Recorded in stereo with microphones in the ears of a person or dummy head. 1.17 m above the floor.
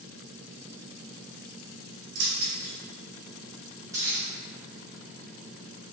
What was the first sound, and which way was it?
Keys jangling, 60° right (ahead or behind).